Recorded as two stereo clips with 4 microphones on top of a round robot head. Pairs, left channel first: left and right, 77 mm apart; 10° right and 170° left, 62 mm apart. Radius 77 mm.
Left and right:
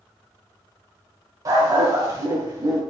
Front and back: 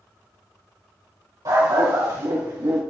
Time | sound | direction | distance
1.4 | a dog barking | 135° right | 3 m